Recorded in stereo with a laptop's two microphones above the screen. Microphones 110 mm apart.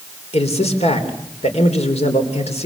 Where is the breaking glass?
No breaking glass in this recording.